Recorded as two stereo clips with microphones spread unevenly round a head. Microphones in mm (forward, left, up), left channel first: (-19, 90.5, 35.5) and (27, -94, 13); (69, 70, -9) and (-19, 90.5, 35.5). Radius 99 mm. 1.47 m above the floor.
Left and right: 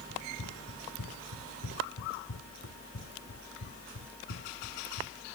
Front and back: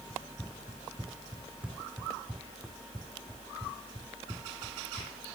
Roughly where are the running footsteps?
Left.